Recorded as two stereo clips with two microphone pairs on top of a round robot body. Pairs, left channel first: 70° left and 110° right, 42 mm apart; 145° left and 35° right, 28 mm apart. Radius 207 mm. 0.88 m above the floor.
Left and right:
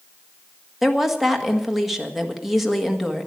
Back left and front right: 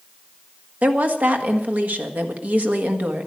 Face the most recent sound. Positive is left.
turn(degrees=-25)